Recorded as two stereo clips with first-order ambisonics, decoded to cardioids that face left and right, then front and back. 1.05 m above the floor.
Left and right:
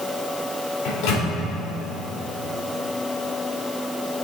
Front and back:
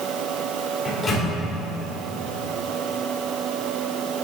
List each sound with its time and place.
0.8 s a microwave: 75° left, 2.5 m